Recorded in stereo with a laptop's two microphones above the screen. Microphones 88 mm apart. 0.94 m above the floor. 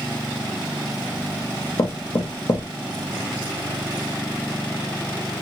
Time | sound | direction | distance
1.8 | knocking | 55° left (ahead or behind) | 0.8 m